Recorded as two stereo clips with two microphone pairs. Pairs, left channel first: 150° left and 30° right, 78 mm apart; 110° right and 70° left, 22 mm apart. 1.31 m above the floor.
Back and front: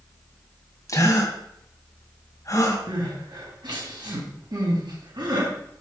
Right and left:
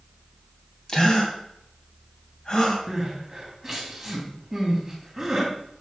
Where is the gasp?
165° right, 2.5 m.